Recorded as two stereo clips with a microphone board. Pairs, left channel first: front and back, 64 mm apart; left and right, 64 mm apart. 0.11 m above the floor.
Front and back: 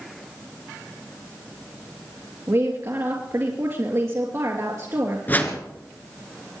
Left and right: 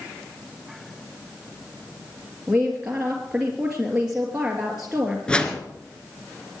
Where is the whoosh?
25° left, 1.7 m.